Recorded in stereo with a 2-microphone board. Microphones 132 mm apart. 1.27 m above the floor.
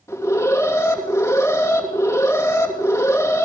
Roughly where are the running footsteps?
I don't hear running footsteps.